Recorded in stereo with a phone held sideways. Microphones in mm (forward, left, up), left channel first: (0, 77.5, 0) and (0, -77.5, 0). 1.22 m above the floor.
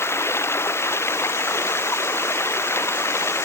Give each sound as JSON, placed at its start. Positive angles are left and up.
{"t": 0.0, "sound": "running water", "side_deg": 15}